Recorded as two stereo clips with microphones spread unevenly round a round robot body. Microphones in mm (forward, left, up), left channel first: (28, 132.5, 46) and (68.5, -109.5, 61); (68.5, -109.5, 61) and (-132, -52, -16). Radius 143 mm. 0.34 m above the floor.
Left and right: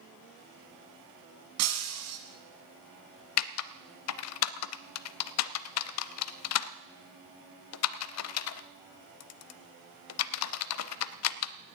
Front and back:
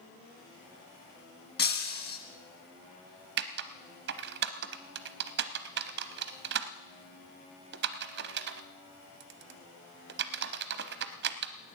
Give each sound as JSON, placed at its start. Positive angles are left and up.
{"t": 1.6, "sound": "breaking glass", "azimuth_deg": -65, "distance_m": 2.0}
{"t": 3.4, "sound": "typing on a keyboard", "azimuth_deg": 125, "distance_m": 0.5}